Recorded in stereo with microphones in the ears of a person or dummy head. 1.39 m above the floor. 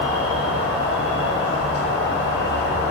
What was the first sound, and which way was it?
An insect, 55° left (ahead or behind).